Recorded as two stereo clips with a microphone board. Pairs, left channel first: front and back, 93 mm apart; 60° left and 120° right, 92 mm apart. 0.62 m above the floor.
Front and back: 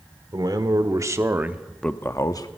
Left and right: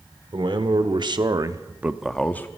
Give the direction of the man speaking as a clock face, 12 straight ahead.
5 o'clock.